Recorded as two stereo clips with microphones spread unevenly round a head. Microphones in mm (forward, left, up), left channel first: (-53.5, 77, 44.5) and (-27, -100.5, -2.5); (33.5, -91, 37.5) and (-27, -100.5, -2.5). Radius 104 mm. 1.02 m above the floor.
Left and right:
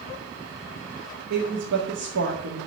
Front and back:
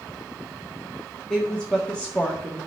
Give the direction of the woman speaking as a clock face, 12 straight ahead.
2 o'clock.